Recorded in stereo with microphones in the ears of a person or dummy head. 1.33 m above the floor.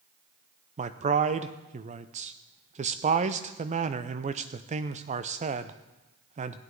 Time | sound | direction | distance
0.8 | a man speaking | 40° right (ahead or behind) | 0.5 m